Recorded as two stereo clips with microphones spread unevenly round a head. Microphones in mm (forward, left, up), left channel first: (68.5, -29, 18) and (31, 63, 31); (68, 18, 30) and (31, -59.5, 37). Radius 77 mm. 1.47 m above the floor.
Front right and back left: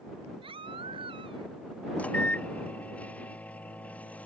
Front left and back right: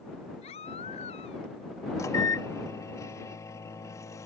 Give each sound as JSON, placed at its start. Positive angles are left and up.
{"t": 0.4, "sound": "a baby crying", "azimuth_deg": 85}
{"t": 2.0, "sound": "a microwave", "azimuth_deg": 10}